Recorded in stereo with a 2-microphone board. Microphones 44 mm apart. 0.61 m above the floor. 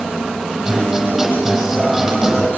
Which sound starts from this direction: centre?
A guitar, at 0.7 s.